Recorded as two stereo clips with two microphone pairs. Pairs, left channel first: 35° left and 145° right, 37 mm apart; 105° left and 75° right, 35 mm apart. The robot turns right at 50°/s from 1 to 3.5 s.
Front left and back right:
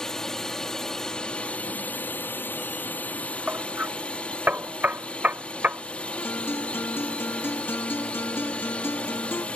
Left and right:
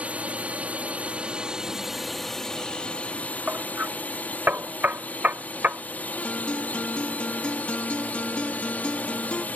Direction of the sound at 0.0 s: 35° right.